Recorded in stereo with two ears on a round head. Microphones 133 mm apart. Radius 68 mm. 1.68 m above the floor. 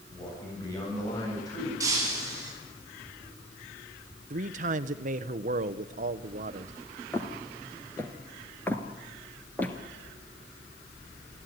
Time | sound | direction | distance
0.1 | a man speaking | 25° left (ahead or behind) | 8.5 m
1.8 | breaking glass | 20° right (ahead or behind) | 9.5 m
4.3 | a man speaking | 55° right (ahead or behind) | 1.0 m
7.1 | footsteps | 15° left (ahead or behind) | 1.9 m